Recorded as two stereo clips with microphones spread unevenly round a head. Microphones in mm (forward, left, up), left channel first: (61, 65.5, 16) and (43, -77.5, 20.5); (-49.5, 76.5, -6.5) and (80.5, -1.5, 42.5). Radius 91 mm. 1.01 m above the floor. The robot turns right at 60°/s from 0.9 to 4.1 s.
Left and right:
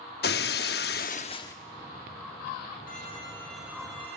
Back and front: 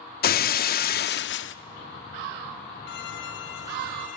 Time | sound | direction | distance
0.2 | breaking glass | 120° left | 0.9 m
2.9 | a violin | 130° left | 3 m